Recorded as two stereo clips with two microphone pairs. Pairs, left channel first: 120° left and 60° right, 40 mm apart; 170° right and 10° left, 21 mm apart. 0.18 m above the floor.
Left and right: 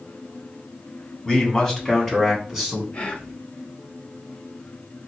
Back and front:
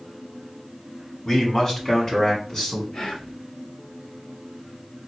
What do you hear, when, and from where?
1.2 s a man speaking: 175° left, 1.8 m; by 2.8 s 135° right, 2 m
2.9 s whispering: 170° left, 1.6 m